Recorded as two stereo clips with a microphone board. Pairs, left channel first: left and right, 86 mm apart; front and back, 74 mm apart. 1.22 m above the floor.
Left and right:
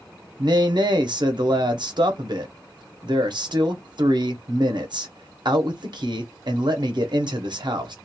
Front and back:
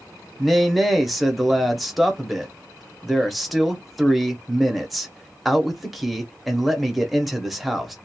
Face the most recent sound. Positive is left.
turn(degrees=-90)